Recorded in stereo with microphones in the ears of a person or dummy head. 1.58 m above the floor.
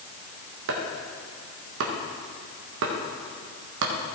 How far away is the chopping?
About 1.3 m.